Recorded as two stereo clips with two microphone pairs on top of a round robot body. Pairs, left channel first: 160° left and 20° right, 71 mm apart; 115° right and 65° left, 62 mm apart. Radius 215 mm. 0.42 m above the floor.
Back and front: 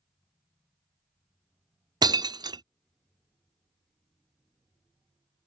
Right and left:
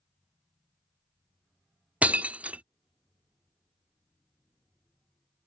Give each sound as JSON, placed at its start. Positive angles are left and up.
{"t": 2.0, "sound": "breaking glass", "azimuth_deg": -5}